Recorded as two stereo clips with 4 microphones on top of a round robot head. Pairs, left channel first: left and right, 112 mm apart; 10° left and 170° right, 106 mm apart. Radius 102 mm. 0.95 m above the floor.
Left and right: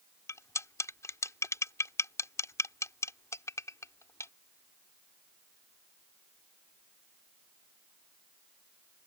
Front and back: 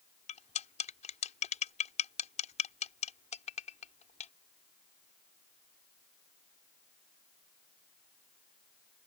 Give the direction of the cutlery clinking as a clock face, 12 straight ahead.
11 o'clock.